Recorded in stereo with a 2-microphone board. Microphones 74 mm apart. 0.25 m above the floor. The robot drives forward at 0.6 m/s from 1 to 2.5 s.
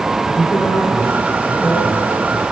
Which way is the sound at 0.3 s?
35° left (ahead or behind).